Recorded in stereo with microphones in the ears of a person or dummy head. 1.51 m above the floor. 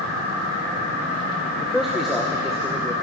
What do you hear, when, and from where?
1.6 s a man speaking: 5° right (ahead or behind), 0.8 m